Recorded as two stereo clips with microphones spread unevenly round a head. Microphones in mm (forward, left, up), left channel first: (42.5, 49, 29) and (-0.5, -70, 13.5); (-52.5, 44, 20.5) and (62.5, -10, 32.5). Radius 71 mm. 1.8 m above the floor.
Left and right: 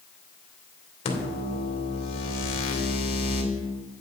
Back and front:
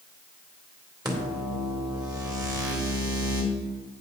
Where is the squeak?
70° left, 1.4 m.